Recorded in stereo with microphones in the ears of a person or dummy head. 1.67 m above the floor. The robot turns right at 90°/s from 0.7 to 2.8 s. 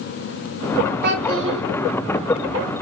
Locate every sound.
1.0 s a child speaking: 115° right, 0.8 m; by 1.6 s 60° right, 0.8 m